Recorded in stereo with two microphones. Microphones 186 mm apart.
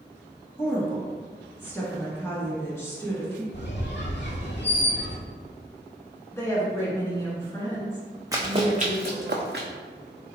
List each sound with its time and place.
0.6 s a woman speaking: 15° left (ahead or behind), 1.3 m
3.5 s a squeak: 80° left, 0.7 m
6.3 s a woman speaking: 15° left (ahead or behind), 1.2 m
8.3 s running footsteps: 20° right (ahead or behind), 0.7 m; by 9.7 s 70° right (ahead or behind), 1.0 m